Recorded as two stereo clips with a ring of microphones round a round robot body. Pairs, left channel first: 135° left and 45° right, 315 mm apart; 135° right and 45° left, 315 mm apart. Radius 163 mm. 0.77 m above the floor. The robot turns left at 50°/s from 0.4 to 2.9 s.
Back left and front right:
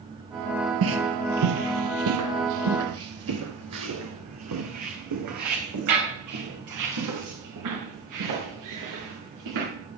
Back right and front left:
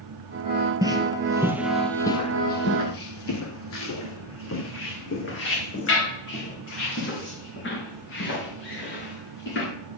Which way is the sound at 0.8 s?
30° right.